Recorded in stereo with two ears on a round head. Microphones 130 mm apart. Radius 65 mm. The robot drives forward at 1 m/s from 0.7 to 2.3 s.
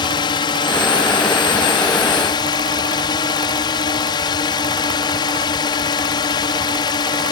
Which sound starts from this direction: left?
A drone, at 0.0 s.